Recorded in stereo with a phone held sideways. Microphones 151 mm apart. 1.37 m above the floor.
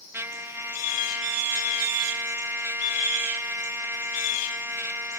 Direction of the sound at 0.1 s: 15° right (ahead or behind).